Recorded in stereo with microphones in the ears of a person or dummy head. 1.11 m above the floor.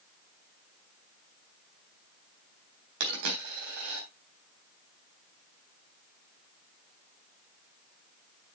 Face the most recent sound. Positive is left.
turn(degrees=-65)  # may be behind; listen again after turning